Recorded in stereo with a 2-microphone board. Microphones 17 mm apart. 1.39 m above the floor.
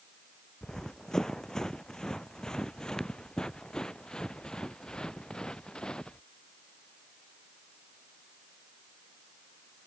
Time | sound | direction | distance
0.6 | running footsteps | 40° left (ahead or behind) | ?